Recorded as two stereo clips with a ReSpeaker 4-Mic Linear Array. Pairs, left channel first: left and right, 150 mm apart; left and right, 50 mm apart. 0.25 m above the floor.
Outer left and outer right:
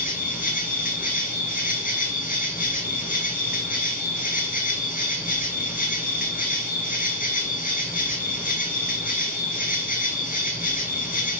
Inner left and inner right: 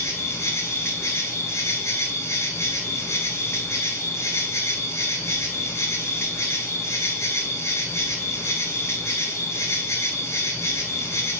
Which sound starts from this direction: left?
An insect, at 0.0 s.